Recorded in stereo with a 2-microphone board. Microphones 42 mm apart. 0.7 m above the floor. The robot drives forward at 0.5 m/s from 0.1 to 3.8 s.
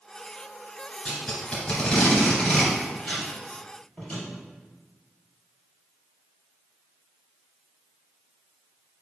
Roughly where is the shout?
No shout in this recording.